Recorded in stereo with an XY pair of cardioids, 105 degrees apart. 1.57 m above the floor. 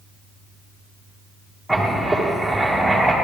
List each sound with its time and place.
1.7 s writing: straight ahead, 2.5 m